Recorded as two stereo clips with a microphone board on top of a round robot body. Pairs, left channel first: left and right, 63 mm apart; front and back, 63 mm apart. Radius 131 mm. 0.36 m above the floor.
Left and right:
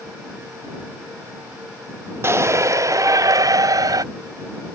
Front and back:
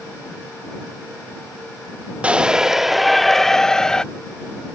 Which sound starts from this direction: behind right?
A shout, at 2.2 s.